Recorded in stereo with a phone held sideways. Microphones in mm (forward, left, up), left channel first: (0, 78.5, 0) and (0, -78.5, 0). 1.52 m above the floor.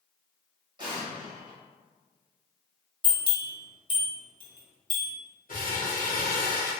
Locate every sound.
0.8 s an explosion: 30° right (ahead or behind), 1.0 m
3.0 s a bell: 30° left (ahead or behind), 1.0 m
5.5 s crumpling: 60° left (ahead or behind), 1.1 m